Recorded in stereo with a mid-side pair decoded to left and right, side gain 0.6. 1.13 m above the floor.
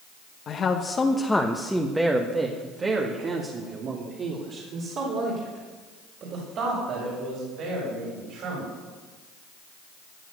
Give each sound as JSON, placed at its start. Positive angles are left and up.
{"t": 0.5, "sound": "a man speaking", "azimuth_deg": 45, "distance_m": 1.2}